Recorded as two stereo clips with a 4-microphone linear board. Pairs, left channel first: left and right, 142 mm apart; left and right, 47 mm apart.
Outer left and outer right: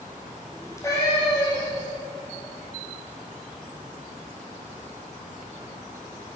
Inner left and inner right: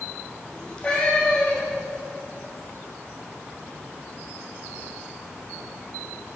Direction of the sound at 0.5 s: 20° left (ahead or behind).